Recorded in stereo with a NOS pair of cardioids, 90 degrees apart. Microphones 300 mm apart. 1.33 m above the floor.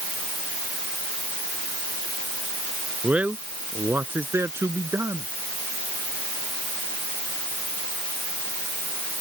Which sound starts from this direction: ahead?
A man speaking, at 3.0 s.